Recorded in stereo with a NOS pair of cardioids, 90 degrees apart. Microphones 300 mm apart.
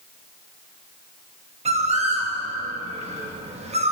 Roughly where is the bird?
Ahead.